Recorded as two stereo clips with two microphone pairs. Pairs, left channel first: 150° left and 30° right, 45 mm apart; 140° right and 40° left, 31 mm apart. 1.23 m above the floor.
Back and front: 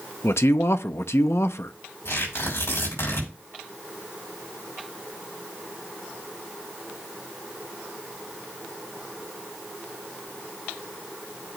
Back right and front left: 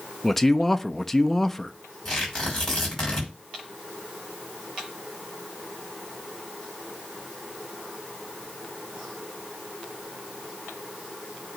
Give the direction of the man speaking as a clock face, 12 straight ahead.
8 o'clock.